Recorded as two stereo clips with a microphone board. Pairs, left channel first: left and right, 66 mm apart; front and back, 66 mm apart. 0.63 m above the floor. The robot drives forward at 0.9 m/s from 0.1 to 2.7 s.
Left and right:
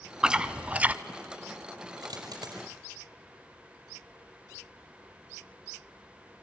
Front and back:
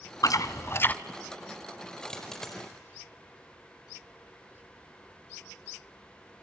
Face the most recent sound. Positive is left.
turn(degrees=-85)